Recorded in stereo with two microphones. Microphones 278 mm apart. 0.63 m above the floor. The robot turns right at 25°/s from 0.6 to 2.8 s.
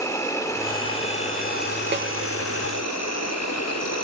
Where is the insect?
10° left, 0.8 m; by 4.0 s 65° left, 0.8 m.